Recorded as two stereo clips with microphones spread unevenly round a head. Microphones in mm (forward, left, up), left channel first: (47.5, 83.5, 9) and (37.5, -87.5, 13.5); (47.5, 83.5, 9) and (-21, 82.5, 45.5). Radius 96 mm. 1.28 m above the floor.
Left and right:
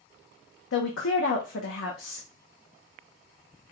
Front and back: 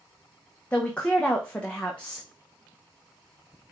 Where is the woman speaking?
80° left, 0.9 m.